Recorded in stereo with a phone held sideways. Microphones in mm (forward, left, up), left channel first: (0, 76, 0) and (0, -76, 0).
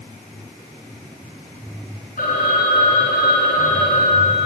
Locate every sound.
2.2 s a phone ringing: 60° left (ahead or behind), 5 m